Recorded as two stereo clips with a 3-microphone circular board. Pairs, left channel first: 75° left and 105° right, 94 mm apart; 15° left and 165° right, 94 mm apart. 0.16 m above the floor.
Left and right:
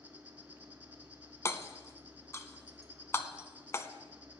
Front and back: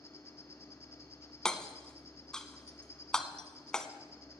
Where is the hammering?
90° left, 0.8 m.